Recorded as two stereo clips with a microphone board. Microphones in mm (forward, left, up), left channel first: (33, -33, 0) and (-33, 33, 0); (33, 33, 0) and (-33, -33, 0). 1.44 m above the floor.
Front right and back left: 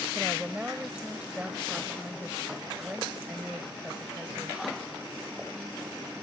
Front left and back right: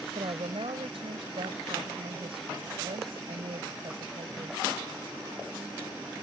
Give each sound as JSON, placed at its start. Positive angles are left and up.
{"t": 0.1, "sound": "a woman speaking", "azimuth_deg": -145}